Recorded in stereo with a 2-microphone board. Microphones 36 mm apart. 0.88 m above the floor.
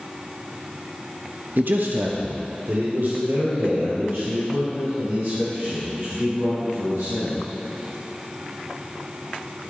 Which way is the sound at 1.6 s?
65° right (ahead or behind).